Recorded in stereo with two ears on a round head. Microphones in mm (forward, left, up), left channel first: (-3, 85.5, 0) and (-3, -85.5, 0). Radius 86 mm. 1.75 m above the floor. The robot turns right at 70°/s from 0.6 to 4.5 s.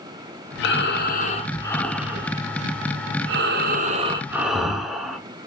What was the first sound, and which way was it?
Breathing, 85° left.